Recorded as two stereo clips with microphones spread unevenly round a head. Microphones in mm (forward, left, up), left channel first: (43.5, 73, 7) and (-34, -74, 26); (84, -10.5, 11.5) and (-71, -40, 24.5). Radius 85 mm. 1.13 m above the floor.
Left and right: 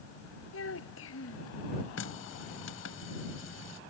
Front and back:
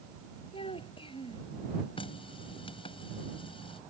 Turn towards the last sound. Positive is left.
turn(degrees=75)